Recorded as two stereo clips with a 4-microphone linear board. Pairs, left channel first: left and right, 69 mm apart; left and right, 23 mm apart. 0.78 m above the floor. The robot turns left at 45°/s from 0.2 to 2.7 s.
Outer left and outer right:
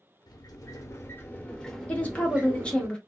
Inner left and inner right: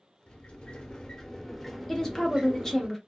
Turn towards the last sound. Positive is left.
turn(degrees=15)  # may be behind; listen again after turning